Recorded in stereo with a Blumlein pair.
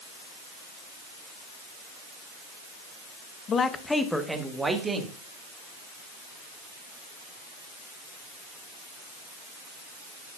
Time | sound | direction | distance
3.5 | a man speaking | 25° left | 0.9 m